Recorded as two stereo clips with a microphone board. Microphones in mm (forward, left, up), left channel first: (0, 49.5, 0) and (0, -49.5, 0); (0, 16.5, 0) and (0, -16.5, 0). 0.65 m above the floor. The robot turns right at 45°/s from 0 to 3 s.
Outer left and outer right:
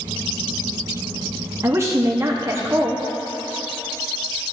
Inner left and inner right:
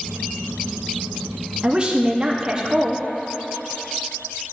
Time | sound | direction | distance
1.6 | a woman speaking | 25° right (ahead or behind) | 0.6 m